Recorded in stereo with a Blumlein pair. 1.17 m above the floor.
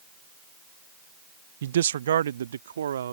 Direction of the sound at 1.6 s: 60° right.